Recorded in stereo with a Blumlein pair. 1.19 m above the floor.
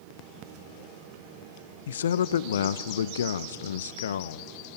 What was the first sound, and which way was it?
A man speaking, 65° left.